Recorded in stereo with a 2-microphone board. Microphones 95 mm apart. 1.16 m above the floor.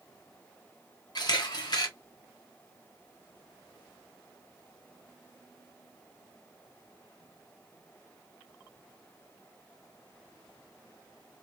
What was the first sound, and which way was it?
A camera shutter, 45° left (ahead or behind).